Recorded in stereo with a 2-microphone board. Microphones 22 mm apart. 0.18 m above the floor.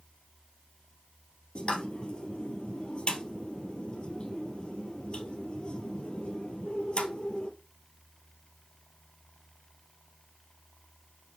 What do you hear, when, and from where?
1.6 s a pop: 50° left (ahead or behind), 1.6 m